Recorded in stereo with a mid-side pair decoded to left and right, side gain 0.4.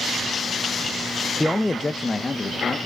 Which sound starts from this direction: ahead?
A man speaking, at 1.4 s.